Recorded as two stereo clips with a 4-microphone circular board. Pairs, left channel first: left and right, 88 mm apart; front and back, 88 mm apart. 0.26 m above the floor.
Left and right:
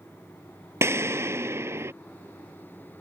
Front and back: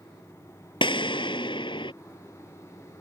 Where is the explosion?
30° right.